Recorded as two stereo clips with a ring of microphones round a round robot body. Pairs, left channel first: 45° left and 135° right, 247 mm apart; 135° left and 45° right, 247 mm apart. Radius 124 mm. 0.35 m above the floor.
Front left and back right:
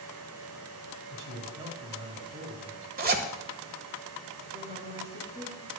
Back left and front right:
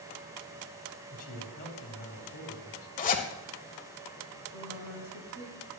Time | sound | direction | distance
1.1 | a man speaking | 175° right | 3 m
3.0 | a zipper | 175° right | 1.4 m
4.5 | a woman speaking | 80° right | 4 m